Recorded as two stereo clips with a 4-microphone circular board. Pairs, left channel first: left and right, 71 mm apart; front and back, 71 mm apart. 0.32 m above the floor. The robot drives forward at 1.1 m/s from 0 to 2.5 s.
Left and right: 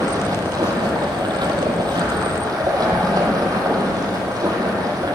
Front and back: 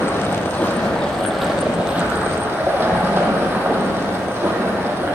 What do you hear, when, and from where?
0.0 s running water: 55° right, 2.5 m; by 5.2 s 120° right, 2.5 m